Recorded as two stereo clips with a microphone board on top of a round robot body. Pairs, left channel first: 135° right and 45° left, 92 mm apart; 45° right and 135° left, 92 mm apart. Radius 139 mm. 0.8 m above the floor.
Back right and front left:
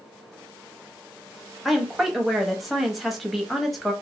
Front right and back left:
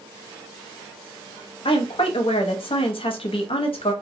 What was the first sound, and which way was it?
A woman speaking, 45° right.